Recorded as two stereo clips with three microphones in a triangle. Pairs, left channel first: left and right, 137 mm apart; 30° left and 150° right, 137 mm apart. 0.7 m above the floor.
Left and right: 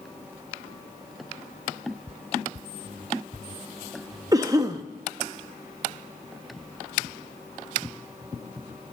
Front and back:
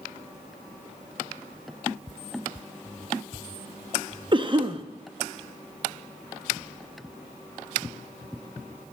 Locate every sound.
4.3 s a cough: 135° right, 0.5 m